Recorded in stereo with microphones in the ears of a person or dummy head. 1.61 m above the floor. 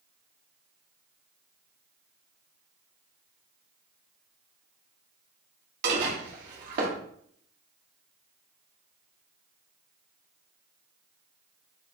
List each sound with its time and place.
5.8 s dishes clattering: 50° right (ahead or behind), 1.4 m